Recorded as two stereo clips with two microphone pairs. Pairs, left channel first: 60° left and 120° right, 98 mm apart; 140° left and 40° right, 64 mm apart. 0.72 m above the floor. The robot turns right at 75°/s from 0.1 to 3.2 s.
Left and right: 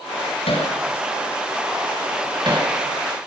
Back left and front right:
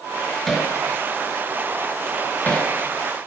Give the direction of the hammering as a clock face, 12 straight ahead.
10 o'clock.